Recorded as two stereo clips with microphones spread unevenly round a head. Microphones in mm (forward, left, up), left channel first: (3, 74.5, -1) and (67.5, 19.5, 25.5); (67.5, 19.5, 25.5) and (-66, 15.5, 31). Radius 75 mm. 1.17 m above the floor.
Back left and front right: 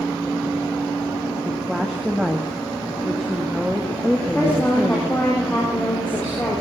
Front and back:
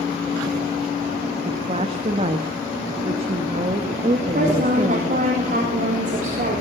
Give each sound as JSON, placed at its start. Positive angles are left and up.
{"t": 1.4, "sound": "a woman speaking", "azimuth_deg": -125, "distance_m": 1.4}
{"t": 4.2, "sound": "a woman speaking", "azimuth_deg": -140, "distance_m": 4.0}